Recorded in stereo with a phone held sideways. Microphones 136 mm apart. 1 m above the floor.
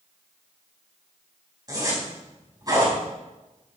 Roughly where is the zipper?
Right.